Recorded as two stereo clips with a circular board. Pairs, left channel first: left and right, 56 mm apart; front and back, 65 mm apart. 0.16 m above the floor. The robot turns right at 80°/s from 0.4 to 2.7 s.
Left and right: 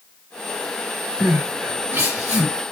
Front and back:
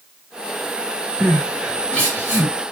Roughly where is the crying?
Behind right.